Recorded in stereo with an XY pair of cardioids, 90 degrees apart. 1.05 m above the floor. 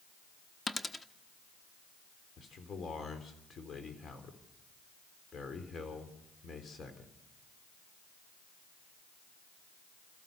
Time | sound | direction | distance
0.7 | a dropped coin | 20° left | 1.0 m
2.4 | a man speaking | 50° left | 3.5 m